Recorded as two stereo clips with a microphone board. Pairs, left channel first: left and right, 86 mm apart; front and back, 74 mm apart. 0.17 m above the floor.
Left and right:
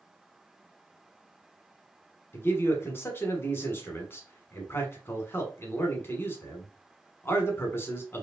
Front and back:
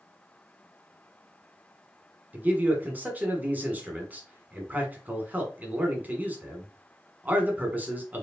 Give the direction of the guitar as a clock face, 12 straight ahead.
No guitar in this recording.